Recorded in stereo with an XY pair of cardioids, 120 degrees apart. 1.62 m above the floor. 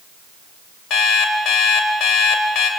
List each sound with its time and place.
0.9 s an alarm clock: 70° left, 4 m